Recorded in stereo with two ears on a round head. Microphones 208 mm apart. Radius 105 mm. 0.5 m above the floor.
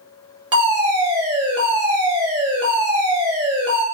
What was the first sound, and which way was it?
A fire alarm, 20° right (ahead or behind).